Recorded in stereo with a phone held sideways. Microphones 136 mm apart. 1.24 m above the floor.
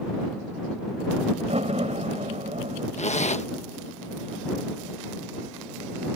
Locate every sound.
1.4 s a door slam: 55° right (ahead or behind)
3.0 s a zipper: 55° left (ahead or behind)